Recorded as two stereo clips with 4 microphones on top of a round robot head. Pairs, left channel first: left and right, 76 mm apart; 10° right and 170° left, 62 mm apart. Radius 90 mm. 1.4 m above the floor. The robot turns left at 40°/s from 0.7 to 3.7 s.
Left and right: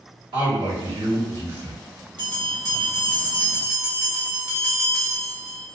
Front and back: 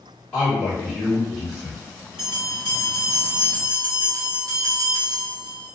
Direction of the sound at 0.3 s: 80° right.